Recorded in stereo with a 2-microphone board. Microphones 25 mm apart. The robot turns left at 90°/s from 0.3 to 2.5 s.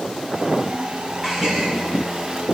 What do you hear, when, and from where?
1.2 s a gasp: 15° right, 6.5 m; by 1.7 s 55° right, 6.5 m